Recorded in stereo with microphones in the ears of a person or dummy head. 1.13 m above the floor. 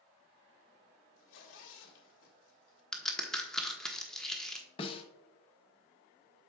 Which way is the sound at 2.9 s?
Centre (ahead or behind).